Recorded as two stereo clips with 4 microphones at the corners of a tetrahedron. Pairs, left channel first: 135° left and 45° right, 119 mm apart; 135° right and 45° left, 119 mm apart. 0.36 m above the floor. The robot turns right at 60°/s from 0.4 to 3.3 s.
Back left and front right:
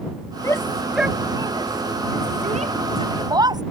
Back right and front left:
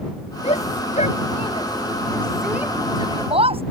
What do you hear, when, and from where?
0.4 s a shout: 160° right; by 3.6 s 10° left